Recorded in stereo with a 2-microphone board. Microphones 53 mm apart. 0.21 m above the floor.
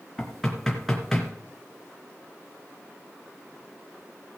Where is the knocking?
5° left (ahead or behind), 3 m.